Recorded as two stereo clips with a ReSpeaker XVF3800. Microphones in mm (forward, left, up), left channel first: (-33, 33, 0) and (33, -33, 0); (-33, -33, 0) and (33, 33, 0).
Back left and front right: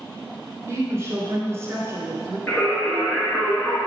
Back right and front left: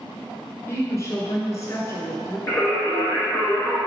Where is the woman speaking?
95° right, 1.7 m.